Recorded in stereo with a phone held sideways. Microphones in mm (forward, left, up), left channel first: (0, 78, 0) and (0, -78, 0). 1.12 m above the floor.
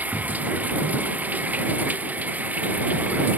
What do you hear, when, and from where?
0.0 s running water: 10° right (ahead or behind)